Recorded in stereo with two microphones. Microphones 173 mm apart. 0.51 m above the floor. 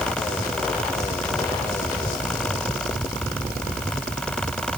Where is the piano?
No piano in this recording.